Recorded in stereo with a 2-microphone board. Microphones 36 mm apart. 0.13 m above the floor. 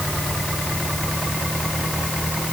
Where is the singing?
No singing in this recording.